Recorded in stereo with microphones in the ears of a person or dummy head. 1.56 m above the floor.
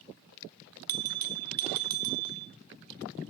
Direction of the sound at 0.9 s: 45° right (ahead or behind).